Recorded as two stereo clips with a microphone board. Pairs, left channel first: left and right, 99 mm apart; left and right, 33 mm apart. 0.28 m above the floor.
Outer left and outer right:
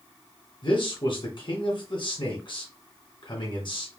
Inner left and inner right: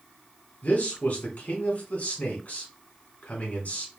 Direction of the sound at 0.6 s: 55° left (ahead or behind).